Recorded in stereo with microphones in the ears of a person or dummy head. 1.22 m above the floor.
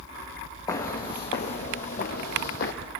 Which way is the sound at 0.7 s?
20° left (ahead or behind).